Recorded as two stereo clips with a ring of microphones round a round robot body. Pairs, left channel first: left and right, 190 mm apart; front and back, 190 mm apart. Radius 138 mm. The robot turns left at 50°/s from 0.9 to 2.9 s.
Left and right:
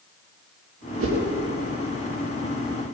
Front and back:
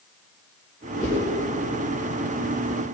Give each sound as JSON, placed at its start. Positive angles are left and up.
{"t": 1.0, "sound": "a whoosh", "azimuth_deg": -110, "distance_m": 4.5}